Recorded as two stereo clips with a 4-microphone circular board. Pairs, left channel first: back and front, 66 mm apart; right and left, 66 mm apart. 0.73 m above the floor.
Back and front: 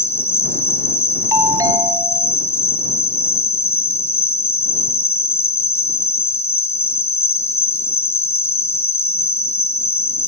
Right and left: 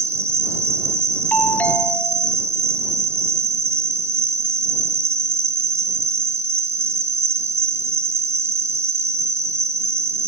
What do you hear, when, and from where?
0.0 s an insect: 135° left
1.3 s a doorbell: 25° right